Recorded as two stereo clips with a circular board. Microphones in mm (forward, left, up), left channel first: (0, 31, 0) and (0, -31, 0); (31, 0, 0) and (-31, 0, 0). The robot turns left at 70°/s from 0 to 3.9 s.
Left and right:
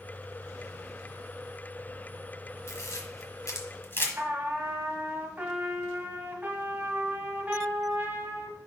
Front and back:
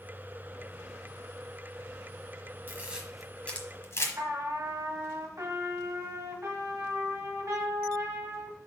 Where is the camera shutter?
125° left, 1.3 m; by 4.1 s 40° left, 1.3 m.